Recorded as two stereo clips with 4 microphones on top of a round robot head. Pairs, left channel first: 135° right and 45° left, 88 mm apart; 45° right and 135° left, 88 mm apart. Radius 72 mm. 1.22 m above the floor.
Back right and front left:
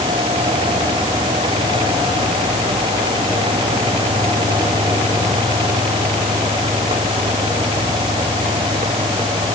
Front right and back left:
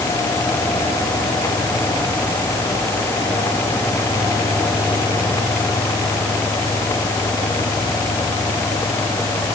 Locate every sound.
Only background noise.